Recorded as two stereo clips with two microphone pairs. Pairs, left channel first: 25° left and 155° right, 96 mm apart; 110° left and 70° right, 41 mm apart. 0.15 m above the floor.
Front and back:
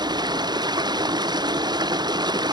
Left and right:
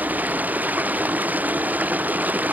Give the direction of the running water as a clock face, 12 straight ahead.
4 o'clock.